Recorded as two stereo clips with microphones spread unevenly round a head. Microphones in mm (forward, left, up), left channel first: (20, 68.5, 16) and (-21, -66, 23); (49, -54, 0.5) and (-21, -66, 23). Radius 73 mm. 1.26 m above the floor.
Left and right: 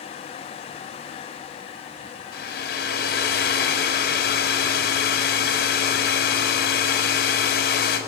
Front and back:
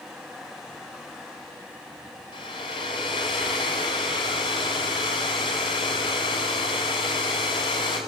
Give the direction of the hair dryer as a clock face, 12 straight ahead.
10 o'clock.